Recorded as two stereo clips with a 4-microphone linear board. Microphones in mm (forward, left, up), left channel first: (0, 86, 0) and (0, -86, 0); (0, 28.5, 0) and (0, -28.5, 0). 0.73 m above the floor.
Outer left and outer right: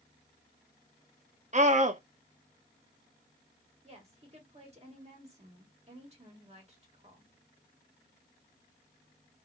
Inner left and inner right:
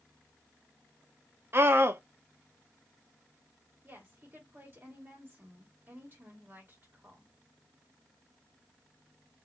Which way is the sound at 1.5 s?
45° right (ahead or behind).